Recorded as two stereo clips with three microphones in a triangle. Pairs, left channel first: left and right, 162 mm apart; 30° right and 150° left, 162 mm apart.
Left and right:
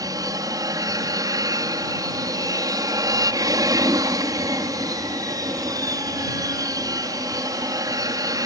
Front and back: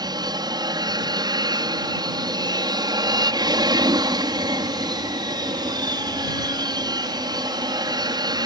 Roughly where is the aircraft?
Behind right.